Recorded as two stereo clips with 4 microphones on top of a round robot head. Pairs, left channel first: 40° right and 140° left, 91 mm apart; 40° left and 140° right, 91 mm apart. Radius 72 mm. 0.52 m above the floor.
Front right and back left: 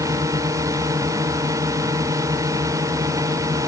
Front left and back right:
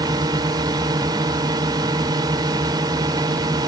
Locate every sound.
0.0 s a drone: 175° right